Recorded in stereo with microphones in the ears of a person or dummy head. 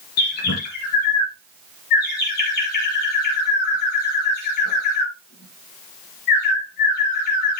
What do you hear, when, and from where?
0.2 s a bird: 55° left (ahead or behind), 4.5 m